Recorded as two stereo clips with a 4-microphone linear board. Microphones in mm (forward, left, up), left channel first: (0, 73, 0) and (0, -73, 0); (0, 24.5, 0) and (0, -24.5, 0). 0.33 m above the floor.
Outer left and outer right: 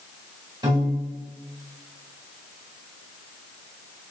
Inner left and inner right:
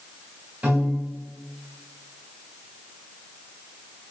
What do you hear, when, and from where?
0.6 s a piano: 30° right (ahead or behind), 1.5 m